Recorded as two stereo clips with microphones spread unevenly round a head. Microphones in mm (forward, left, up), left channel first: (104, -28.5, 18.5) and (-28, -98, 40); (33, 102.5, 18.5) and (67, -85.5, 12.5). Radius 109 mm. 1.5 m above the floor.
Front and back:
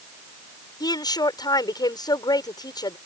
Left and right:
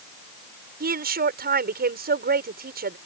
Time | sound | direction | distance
0.8 | a woman speaking | 40° right | ?